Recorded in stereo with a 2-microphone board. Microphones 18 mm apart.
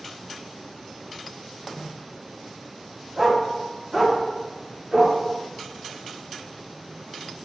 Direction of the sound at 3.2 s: 15° right (ahead or behind).